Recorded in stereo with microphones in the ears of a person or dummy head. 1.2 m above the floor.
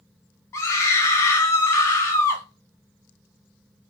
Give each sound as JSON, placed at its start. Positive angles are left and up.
{"t": 0.5, "sound": "a scream", "side_deg": 15, "distance_m": 0.5}